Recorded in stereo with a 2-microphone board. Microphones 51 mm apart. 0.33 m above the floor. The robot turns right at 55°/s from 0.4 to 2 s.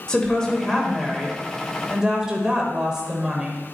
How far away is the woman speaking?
About 1.3 m.